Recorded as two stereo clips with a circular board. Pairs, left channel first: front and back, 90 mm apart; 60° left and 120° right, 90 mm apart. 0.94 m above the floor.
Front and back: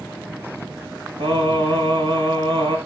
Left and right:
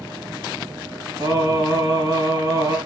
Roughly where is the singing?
Behind.